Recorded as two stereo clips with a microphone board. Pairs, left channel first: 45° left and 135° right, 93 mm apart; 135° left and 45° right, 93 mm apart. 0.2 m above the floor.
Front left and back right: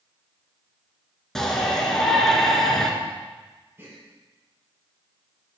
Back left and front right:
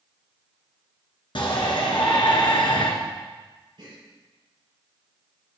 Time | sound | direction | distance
1.4 | a shout | 130° left | 2.5 m
3.8 | a gasp | 70° right | 4.5 m